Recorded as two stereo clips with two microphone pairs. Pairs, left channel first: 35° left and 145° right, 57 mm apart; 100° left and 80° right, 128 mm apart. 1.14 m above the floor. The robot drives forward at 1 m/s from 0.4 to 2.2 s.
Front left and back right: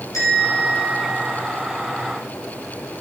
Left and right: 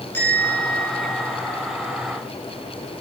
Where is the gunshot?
No gunshot in this recording.